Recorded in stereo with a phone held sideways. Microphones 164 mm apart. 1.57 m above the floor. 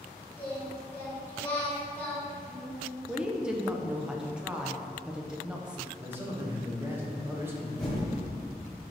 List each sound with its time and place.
0.4 s singing: 10° left (ahead or behind), 1.6 m
3.1 s a woman speaking: 5° right (ahead or behind), 0.5 m
6.0 s a man speaking: 15° right (ahead or behind), 1.1 m
7.8 s typing on a keyboard: centre (ahead or behind), 1.4 m